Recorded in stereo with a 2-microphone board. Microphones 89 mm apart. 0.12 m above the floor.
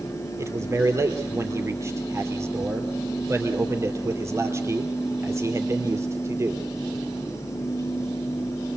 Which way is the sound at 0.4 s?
30° right (ahead or behind).